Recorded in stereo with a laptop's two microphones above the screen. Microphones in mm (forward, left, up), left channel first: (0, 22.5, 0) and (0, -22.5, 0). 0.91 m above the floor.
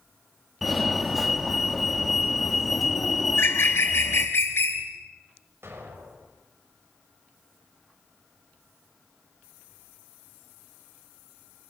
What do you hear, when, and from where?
0.6 s a fire alarm: centre (ahead or behind), 3 m
3.3 s a bird: 60° left (ahead or behind), 3.5 m
5.6 s an explosion: 65° right (ahead or behind), 5 m